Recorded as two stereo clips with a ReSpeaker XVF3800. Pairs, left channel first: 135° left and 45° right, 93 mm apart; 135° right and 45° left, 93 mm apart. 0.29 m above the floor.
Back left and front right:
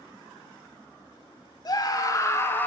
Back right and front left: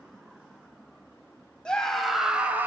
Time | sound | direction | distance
1.6 | a scream | 145° left | 1.6 m